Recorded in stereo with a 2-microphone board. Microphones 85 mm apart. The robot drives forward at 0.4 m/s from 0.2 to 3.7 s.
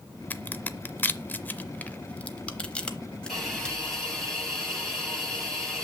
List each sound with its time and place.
0.3 s a crack: 20° left (ahead or behind), 0.5 m; by 3.8 s 10° left (ahead or behind), 1.2 m
3.3 s a hiss: centre (ahead or behind), 6 m